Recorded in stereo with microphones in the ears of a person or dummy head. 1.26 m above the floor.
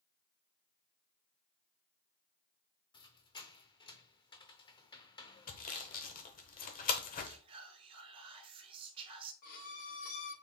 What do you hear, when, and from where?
2.9 s a squeak: 25° left (ahead or behind), 0.6 m
5.5 s sawing: 40° left (ahead or behind), 0.8 m
7.2 s whispering: 25° right (ahead or behind), 0.9 m
9.4 s a violin: 50° left (ahead or behind), 0.7 m